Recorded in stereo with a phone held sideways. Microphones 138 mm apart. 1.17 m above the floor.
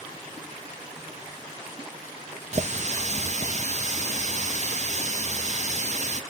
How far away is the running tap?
About 0.5 m.